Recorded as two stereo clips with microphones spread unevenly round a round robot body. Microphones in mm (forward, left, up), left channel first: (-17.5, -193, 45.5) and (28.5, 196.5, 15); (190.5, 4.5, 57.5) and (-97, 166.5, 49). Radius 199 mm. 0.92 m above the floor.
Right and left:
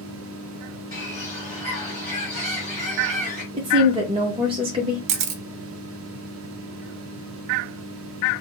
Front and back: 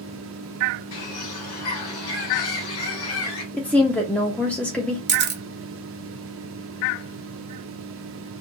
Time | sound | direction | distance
0.9 | a bird | 20° right | 1.9 m
3.5 | a woman speaking | 55° left | 0.7 m
5.1 | a camera shutter | 100° left | 0.7 m